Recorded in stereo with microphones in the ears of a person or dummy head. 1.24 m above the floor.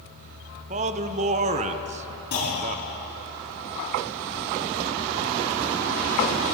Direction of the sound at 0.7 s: 30° right (ahead or behind).